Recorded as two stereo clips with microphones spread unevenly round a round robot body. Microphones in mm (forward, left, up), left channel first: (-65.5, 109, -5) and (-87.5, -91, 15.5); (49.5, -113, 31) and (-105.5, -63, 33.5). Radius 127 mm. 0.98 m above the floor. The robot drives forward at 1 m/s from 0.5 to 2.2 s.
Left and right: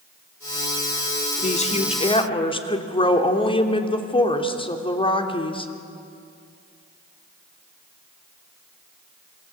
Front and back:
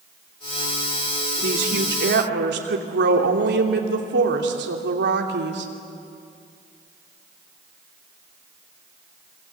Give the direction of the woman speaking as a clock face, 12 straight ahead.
7 o'clock.